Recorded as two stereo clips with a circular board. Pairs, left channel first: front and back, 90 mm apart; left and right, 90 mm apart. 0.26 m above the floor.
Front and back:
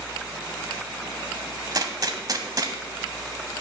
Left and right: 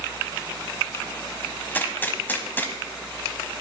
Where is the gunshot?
150° left, 0.8 m.